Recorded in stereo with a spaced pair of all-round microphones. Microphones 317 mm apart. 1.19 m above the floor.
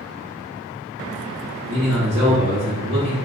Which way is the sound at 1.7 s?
55° right (ahead or behind).